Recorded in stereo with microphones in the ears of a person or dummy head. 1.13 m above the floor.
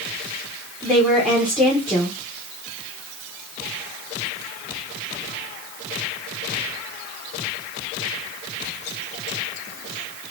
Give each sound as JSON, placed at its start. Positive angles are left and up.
{"t": 0.8, "sound": "a woman speaking", "side_deg": 0, "distance_m": 1.0}